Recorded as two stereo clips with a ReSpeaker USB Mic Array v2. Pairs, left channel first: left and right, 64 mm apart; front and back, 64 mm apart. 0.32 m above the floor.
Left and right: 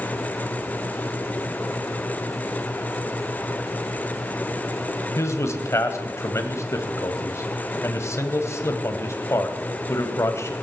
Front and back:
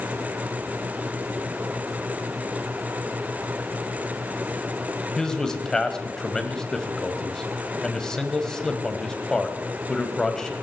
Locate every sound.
5.2 s a man speaking: 75° left, 1.7 m